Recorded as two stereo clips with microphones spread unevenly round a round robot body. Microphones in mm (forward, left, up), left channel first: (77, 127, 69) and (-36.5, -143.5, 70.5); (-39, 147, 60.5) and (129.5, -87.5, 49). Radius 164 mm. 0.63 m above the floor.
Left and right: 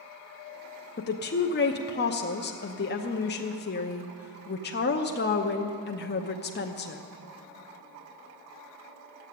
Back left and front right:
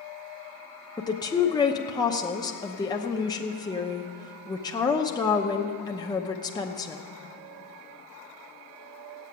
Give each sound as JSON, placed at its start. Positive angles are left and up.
{"t": 1.0, "sound": "a woman speaking", "azimuth_deg": 55, "distance_m": 0.9}